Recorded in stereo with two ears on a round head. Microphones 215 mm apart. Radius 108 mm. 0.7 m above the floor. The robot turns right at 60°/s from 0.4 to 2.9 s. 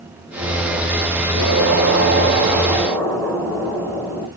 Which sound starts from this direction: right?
An explosion, at 1.4 s.